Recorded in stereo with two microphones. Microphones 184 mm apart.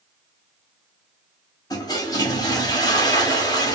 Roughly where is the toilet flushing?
Left.